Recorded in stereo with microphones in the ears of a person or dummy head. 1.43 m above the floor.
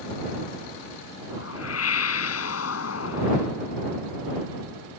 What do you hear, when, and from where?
1.3 s a whoosh: 90° left